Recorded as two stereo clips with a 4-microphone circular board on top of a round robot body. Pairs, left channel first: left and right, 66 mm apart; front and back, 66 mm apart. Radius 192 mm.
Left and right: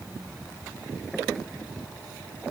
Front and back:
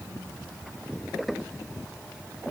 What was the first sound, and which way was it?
Only background noise.